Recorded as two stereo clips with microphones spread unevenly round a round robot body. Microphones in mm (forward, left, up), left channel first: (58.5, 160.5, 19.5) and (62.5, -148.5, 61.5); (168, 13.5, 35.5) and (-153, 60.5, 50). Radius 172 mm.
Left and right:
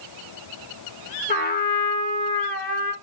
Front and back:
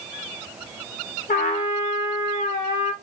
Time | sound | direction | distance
1.3 | a trumpet | 50° left | 1.2 m